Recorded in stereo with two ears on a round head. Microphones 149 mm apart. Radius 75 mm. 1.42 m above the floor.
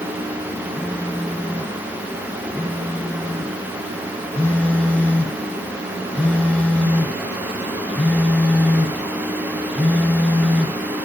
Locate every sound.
0.8 s a phone buzzing: 10° left (ahead or behind), 1.5 m